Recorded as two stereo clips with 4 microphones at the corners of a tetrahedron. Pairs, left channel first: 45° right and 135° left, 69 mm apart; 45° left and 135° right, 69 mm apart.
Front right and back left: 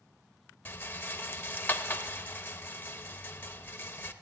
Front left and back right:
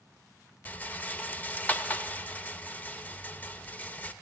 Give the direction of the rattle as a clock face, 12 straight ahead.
12 o'clock.